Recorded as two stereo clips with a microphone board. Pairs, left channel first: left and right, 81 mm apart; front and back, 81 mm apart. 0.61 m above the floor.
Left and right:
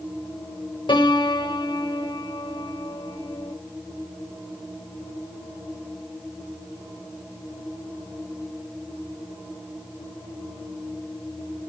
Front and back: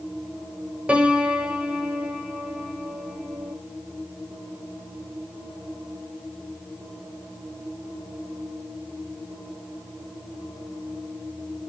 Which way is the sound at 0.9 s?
105° left.